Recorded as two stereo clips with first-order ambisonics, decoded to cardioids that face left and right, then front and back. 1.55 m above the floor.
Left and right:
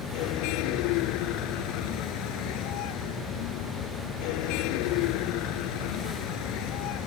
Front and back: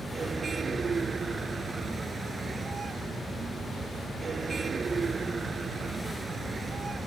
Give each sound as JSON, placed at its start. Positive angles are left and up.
{"t": 0.0, "sound": "a vehicle", "azimuth_deg": 110}